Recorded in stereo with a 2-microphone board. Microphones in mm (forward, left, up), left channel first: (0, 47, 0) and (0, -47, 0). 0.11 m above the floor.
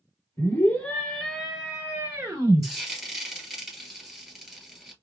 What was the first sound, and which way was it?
A scream, 25° left (ahead or behind).